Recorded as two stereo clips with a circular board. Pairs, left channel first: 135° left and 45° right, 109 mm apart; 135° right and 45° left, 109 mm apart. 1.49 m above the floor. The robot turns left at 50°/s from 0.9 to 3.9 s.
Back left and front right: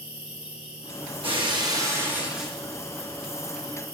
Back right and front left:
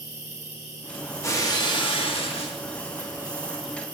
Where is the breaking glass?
70° right, 1.6 m; by 2.6 s 140° right, 1.6 m.